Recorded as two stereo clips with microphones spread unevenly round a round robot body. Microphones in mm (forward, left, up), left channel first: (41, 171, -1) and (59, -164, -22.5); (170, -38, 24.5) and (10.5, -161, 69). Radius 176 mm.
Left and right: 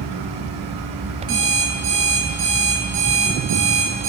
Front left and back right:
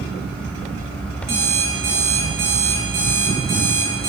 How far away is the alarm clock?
About 4.5 m.